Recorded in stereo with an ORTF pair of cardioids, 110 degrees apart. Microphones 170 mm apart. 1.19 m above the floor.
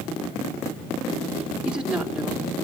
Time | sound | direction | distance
1.6 | a woman speaking | 5° right | 4 m